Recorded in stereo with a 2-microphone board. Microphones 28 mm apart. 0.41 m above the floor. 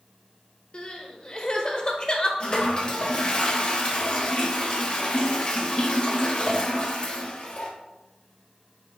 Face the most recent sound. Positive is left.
turn(degrees=30)  # may be behind; listen again after turning